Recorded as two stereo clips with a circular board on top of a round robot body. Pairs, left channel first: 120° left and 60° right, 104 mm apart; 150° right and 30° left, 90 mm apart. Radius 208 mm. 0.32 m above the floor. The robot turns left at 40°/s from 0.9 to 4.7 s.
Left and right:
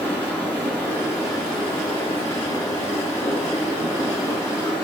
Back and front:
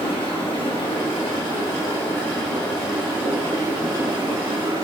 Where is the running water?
165° right, 2 m; by 4.8 s 45° left, 2 m.